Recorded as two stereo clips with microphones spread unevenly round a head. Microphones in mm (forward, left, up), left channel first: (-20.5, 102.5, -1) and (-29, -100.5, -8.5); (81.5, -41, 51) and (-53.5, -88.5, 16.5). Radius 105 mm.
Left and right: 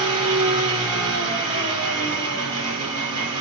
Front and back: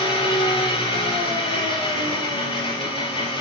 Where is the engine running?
30° right, 5 m.